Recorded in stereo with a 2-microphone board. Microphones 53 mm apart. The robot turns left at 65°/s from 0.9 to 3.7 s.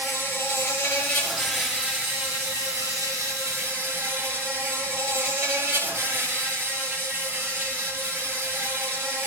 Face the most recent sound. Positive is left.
turn(degrees=-145)